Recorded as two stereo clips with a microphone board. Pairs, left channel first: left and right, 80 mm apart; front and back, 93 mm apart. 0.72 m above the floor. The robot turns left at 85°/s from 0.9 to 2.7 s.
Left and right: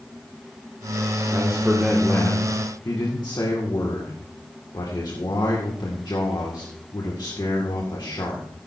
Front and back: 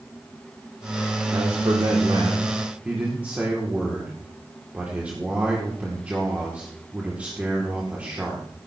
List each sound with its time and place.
1.3 s a man speaking: 135° right, 2 m; by 8.5 s 110° left, 2 m